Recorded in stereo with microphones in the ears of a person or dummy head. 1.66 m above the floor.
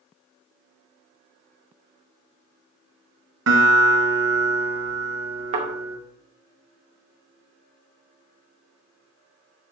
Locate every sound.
3.5 s a guitar: 65° right (ahead or behind), 2 m
5.5 s a thud: 45° right (ahead or behind), 2.5 m